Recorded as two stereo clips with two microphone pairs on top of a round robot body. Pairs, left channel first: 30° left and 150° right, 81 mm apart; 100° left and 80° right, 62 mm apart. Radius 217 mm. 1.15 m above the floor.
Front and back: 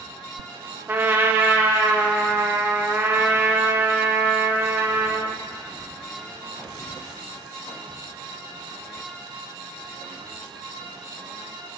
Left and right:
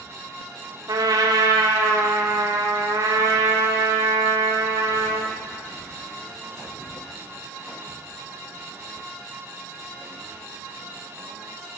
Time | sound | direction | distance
0.9 | a trumpet | 90° right | 0.8 m